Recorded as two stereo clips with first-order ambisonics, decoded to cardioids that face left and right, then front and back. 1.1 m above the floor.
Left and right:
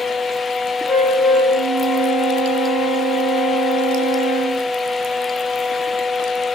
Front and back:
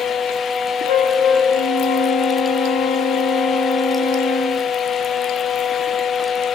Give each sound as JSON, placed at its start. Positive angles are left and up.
{"t": 0.9, "sound": "a flute", "azimuth_deg": 15, "distance_m": 6.0}